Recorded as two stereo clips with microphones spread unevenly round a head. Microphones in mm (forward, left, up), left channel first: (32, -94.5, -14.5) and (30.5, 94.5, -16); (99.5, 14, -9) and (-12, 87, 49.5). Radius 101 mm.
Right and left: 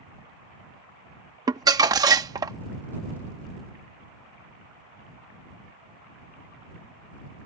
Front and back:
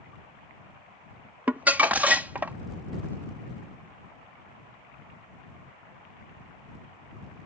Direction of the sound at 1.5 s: 150° left.